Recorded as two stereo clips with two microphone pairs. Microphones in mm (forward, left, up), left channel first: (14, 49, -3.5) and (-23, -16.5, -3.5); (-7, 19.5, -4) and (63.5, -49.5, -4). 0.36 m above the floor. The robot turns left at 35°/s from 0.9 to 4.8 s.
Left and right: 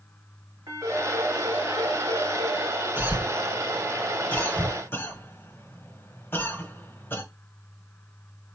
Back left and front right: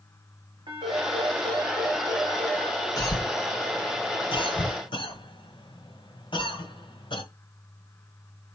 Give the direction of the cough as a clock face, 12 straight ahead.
6 o'clock.